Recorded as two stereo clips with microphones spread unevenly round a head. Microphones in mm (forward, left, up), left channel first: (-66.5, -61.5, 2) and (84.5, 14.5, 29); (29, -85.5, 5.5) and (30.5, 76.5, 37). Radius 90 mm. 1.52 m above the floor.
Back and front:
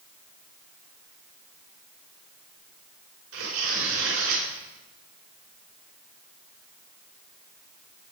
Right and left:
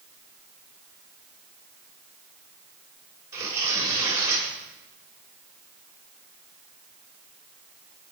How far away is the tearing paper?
About 5.5 m.